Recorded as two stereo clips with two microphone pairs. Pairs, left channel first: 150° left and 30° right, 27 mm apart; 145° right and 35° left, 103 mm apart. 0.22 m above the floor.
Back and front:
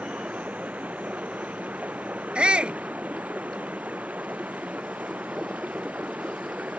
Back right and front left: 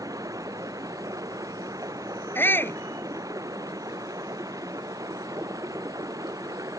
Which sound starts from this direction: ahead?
Running water, at 0.0 s.